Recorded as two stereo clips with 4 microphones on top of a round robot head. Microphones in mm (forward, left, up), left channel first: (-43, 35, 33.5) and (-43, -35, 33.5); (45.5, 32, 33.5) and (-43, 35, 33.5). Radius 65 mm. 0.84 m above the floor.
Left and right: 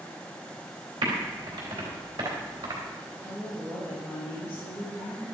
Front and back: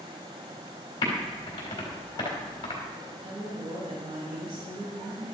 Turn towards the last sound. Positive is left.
turn(degrees=-165)